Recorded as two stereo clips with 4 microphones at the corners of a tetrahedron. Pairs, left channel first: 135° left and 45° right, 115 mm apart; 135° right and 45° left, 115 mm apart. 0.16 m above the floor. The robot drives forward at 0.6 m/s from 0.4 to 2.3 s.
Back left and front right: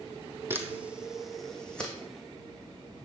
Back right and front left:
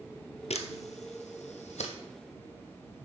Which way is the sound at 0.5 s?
115° right.